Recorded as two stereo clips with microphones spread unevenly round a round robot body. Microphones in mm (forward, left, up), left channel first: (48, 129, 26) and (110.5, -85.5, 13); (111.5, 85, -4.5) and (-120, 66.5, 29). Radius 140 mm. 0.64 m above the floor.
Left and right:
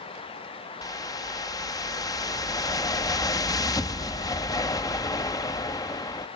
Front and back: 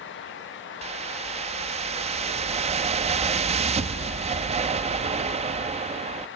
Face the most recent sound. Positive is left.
turn(degrees=160)